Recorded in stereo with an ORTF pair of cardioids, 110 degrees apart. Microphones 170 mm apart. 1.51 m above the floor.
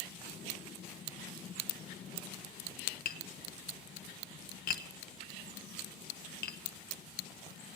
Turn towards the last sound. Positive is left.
turn(degrees=55)